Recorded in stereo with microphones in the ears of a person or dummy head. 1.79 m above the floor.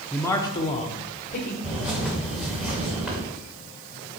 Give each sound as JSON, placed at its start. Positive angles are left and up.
{"t": 0.1, "sound": "a man speaking", "side_deg": 5, "distance_m": 0.7}
{"t": 1.6, "sound": "a bird", "side_deg": -5, "distance_m": 2.5}